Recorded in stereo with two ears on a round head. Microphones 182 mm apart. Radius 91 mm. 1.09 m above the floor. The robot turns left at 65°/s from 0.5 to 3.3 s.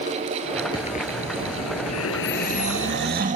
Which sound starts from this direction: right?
Snoring, at 2.3 s.